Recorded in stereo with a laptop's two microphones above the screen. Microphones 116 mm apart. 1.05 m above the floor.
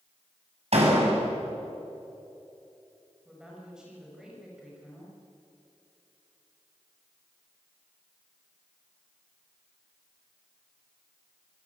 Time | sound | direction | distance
0.7 | a door slam | 65° right (ahead or behind) | 6.5 m
3.2 | a woman speaking | 5° right (ahead or behind) | 6 m